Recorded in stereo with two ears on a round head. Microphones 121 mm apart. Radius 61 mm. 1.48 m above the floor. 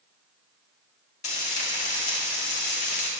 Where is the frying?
55° left (ahead or behind), 1.6 m.